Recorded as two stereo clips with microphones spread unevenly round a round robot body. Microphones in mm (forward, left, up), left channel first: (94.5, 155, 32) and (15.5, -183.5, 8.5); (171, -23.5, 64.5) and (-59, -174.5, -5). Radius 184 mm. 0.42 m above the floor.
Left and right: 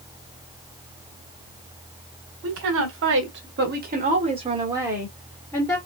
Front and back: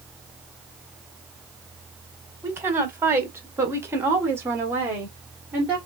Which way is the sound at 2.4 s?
80° right.